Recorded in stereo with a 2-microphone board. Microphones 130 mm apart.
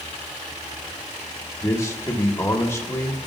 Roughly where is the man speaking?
Left.